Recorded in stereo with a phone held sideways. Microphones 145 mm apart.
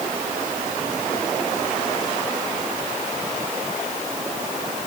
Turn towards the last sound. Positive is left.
No sound to turn to.